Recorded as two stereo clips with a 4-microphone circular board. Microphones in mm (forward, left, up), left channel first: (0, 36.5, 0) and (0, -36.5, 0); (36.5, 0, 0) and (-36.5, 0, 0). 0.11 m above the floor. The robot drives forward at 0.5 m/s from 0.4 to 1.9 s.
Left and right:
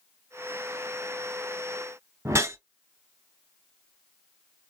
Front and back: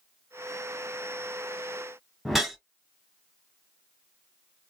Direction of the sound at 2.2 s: 95° right.